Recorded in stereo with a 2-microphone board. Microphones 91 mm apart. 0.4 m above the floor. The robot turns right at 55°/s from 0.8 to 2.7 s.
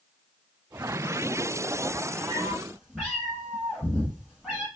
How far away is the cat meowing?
About 2 m.